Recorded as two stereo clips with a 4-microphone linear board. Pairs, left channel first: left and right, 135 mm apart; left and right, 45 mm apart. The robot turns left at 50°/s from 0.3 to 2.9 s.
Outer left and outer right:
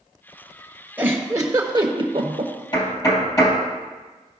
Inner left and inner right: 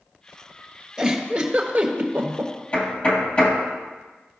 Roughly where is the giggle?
Centre.